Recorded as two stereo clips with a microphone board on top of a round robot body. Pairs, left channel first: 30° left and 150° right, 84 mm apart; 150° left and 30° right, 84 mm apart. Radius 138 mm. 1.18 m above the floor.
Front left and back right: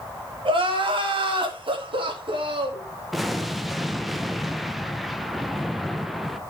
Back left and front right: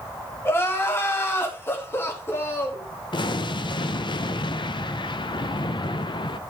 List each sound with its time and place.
0.5 s crying: 150° right, 2.5 m
3.1 s an explosion: 120° left, 0.8 m